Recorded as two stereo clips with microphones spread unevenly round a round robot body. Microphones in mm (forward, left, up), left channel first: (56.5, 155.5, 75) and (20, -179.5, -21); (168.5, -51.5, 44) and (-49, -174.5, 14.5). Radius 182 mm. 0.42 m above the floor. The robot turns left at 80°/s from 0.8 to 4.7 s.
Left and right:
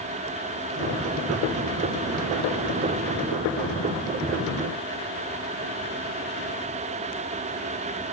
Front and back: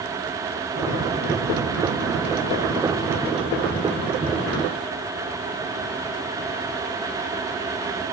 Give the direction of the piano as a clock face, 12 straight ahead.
I don't hear a piano.